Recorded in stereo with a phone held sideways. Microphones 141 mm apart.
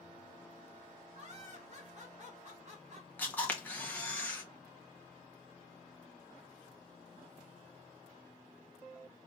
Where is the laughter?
50° right (ahead or behind), 2.5 m.